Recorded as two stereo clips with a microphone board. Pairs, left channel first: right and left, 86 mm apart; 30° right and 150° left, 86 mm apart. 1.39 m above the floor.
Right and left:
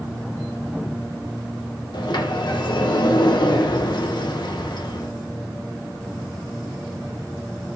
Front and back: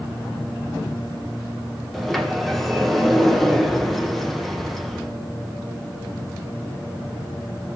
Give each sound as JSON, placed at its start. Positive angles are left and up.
{"t": 1.9, "sound": "a sliding door", "azimuth_deg": -115, "distance_m": 1.3}